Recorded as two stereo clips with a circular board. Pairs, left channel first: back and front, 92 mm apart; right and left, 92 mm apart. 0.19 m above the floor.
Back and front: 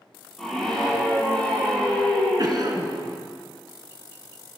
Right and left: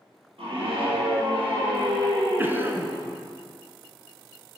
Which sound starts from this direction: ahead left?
A cough, at 2.4 s.